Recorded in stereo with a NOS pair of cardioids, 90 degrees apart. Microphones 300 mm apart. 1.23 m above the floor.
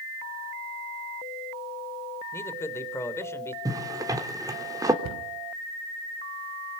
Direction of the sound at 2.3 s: 10° left.